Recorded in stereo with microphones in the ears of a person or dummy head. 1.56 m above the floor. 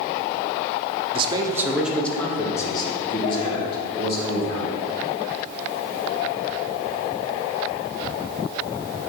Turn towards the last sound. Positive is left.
turn(degrees=40)  # may be behind; listen again after turning